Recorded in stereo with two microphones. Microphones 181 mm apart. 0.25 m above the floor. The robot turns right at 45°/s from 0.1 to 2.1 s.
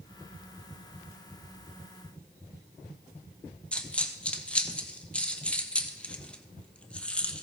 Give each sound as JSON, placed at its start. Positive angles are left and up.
{"t": 3.7, "sound": "a dropped coin", "side_deg": 5, "distance_m": 0.9}